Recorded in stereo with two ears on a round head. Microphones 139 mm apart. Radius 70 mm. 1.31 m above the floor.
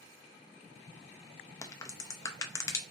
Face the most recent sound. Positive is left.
turn(degrees=20)  # may be behind; listen again after turning